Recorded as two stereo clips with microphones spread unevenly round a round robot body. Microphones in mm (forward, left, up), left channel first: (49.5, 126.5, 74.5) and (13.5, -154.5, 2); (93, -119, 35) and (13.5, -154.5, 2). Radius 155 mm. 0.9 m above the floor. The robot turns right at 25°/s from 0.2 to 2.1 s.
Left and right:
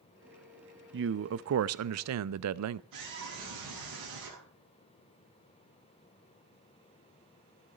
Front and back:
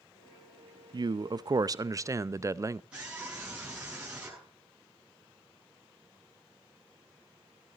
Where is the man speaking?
140° right, 0.6 m; by 2.8 s 110° right, 0.6 m.